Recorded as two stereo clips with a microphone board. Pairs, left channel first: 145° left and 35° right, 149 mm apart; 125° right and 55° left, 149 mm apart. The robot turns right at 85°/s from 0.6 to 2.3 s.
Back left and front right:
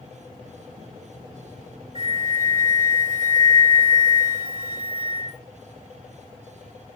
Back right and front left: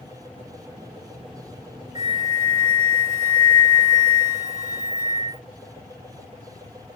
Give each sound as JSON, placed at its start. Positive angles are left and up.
{"t": 1.9, "sound": "a flute", "azimuth_deg": -85, "distance_m": 2.0}